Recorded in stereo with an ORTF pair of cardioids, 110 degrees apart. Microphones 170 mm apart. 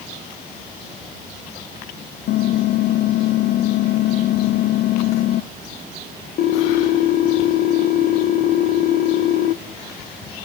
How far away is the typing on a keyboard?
About 0.5 m.